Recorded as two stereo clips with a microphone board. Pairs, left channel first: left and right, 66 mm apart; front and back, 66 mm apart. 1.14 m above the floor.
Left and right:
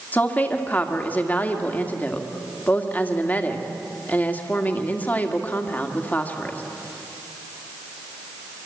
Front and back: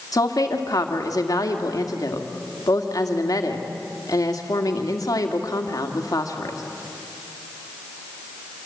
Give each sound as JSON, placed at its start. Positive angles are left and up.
{"t": 0.1, "sound": "a woman speaking", "azimuth_deg": 25, "distance_m": 2.0}